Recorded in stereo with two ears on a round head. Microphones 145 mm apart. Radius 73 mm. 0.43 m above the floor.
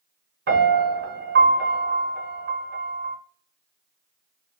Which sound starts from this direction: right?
A piano, at 0.5 s.